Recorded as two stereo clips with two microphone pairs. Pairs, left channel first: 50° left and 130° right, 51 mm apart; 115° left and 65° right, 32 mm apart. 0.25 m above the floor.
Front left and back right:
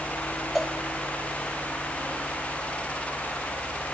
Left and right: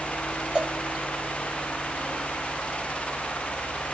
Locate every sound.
0.6 s a cowbell: 55° right, 1.1 m